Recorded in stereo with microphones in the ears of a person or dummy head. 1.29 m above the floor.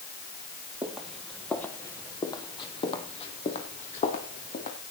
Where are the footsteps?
10° right (ahead or behind), 1.6 m; by 4.8 s 45° left (ahead or behind), 3 m.